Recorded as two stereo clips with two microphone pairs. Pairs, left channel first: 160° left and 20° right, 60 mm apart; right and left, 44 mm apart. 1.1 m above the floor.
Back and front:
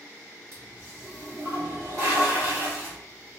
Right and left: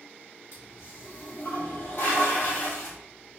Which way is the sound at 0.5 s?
50° right.